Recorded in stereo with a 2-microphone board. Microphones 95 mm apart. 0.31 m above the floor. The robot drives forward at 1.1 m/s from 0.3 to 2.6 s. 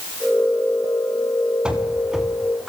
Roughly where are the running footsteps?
Centre.